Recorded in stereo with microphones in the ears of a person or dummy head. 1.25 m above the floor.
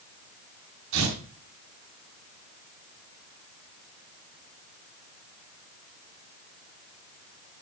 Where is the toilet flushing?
No toilet flushing in this recording.